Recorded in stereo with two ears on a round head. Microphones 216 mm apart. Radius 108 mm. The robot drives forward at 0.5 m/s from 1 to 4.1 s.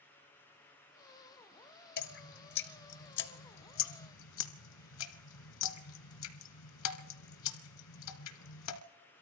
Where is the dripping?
45° left (ahead or behind), 1.6 m; by 8.8 s 80° left, 1.2 m.